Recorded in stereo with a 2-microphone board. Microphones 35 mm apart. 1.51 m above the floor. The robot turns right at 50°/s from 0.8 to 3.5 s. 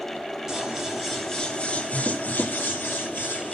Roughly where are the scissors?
Ahead.